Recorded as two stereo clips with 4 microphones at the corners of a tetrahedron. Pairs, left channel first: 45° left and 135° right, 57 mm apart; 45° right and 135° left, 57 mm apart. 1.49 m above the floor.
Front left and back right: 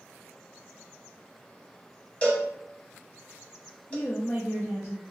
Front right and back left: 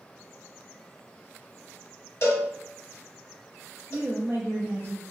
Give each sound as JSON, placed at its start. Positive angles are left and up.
{"t": 2.2, "sound": "a cowbell", "azimuth_deg": -15, "distance_m": 0.9}
{"t": 3.9, "sound": "a woman speaking", "azimuth_deg": 75, "distance_m": 0.5}